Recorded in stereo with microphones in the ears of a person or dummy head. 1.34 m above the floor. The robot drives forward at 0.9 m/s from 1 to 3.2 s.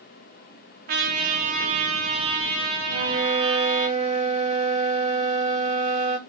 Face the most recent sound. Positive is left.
turn(degrees=-35)  # may be behind; listen again after turning